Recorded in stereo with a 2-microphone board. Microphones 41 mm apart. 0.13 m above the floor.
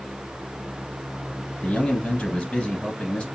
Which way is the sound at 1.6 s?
20° left (ahead or behind).